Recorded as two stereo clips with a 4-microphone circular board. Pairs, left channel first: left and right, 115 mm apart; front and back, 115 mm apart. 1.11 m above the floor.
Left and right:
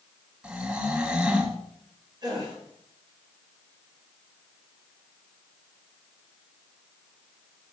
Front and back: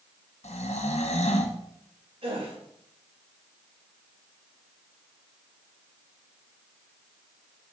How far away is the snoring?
About 1.3 m.